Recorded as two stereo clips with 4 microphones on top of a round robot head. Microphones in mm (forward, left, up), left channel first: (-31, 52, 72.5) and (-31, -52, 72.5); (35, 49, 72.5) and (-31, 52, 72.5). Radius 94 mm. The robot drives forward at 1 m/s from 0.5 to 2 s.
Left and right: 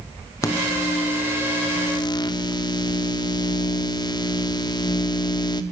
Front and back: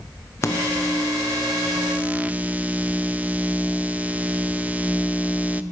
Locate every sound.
0.4 s a microwave: 35° left, 1.6 m; by 5.6 s 120° left, 1.2 m